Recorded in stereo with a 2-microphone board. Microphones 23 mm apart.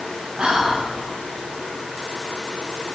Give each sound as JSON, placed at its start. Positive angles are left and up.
{"t": 0.4, "sound": "whispering", "side_deg": -45, "distance_m": 1.3}